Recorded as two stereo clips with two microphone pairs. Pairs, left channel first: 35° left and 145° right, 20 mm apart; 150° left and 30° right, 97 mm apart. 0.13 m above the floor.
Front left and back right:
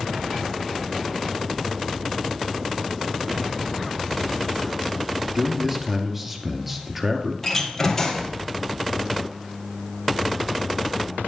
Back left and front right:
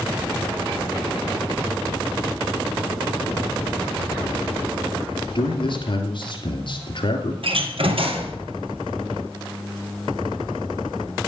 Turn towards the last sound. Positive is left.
turn(degrees=-40)